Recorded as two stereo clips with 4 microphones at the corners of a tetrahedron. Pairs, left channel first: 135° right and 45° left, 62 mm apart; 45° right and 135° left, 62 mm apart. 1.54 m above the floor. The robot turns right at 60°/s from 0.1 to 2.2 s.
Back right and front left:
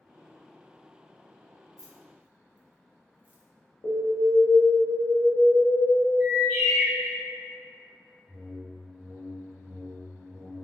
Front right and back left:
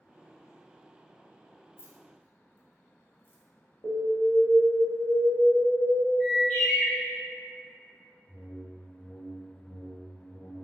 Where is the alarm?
100° right, 0.7 m.